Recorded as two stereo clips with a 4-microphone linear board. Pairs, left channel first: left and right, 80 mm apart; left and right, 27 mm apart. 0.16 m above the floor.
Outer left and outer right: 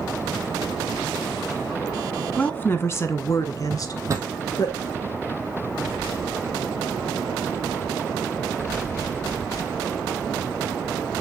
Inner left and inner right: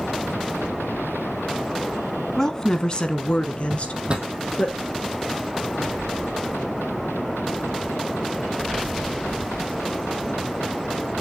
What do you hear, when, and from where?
2.4 s a woman speaking: 20° left (ahead or behind), 1.1 m; by 4.7 s 55° left (ahead or behind), 2 m
3.7 s a drawer: 40° right (ahead or behind), 1.7 m